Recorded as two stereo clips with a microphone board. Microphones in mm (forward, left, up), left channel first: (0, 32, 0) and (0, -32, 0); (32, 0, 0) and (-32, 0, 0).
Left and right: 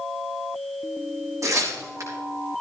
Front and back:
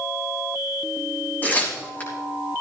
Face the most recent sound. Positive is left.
turn(degrees=-60)